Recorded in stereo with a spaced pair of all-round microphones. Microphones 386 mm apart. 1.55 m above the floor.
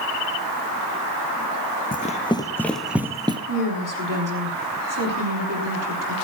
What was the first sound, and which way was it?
Running footsteps, 20° left (ahead or behind).